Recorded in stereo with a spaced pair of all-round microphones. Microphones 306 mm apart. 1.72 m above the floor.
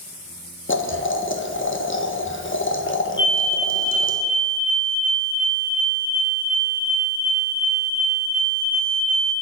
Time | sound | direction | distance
0.7 | boiling | 40° left (ahead or behind) | 1.6 m
3.2 | a fire alarm | 15° left (ahead or behind) | 1.4 m